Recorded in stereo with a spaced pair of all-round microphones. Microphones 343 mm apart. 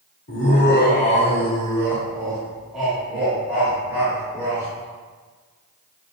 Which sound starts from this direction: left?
Laughter, at 0.3 s.